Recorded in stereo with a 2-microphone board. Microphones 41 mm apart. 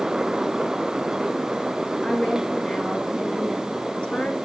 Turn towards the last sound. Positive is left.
turn(degrees=25)  # may be behind; listen again after turning